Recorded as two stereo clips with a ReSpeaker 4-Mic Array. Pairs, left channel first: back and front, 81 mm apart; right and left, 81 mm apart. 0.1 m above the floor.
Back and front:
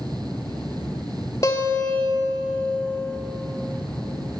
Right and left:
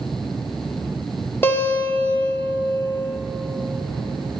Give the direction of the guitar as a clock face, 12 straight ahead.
5 o'clock.